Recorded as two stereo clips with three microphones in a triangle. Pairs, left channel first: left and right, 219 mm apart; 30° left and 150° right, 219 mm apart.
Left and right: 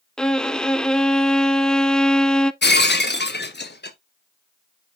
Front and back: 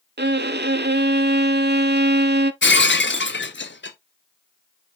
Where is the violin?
175° left, 0.5 m.